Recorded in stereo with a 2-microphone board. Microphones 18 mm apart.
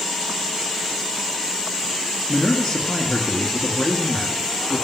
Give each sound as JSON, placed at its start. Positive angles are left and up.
{"t": 2.3, "sound": "a man speaking", "side_deg": 15, "distance_m": 1.7}